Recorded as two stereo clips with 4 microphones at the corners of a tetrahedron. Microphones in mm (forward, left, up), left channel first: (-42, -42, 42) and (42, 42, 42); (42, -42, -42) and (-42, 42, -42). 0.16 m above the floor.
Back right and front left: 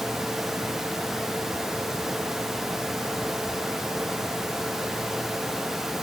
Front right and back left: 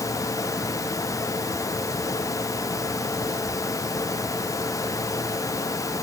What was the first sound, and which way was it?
Only background noise.